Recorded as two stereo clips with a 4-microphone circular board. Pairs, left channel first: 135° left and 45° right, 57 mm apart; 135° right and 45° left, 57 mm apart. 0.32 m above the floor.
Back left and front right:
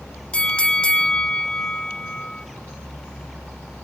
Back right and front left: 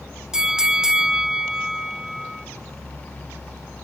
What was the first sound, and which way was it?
A bell, 100° left.